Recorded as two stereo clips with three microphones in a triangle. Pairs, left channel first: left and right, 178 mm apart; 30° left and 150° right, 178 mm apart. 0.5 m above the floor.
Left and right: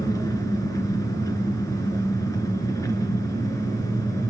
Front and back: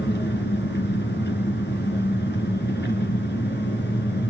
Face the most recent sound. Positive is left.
turn(degrees=20)